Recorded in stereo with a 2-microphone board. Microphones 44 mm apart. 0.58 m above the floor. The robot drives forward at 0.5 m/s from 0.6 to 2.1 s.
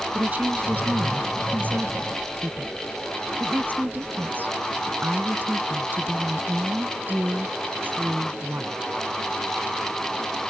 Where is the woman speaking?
40° right (ahead or behind); by 8.8 s 45° right (ahead or behind).